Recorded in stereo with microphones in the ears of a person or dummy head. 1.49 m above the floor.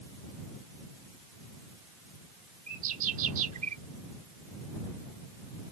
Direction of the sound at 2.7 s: 45° right (ahead or behind).